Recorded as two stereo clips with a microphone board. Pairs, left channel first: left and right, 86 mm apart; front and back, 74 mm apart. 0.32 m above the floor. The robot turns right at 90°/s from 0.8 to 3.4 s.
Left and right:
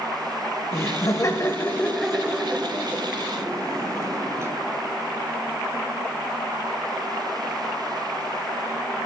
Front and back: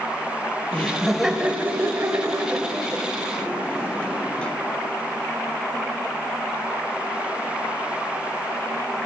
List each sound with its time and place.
0.7 s laughter: 60° left, 1.1 m; by 4.5 s 65° right, 1.1 m